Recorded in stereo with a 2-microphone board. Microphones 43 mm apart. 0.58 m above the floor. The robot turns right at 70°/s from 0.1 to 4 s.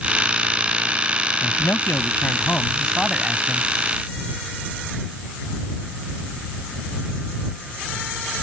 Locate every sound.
1.4 s a man speaking: 65° left; by 3.7 s 135° right